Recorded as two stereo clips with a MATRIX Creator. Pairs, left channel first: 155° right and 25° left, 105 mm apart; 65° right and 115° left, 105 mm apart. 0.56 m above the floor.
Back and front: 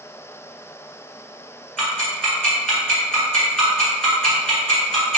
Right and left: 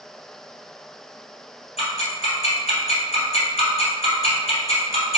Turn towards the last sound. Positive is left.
turn(degrees=-75)